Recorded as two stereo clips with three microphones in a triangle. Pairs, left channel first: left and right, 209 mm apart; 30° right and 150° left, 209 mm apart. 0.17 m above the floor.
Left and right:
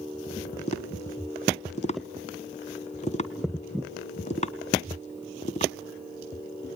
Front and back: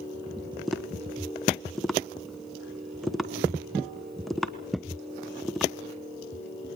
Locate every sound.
0.7 s tapping: 60° left, 1.1 m